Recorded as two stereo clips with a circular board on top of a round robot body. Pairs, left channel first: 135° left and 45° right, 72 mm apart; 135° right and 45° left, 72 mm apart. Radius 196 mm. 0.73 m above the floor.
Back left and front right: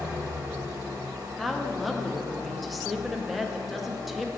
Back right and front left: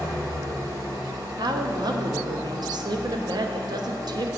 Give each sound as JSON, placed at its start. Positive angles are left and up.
{"t": 0.0, "sound": "an engine running", "azimuth_deg": 5, "distance_m": 0.7}
{"t": 1.4, "sound": "a woman speaking", "azimuth_deg": 45, "distance_m": 0.7}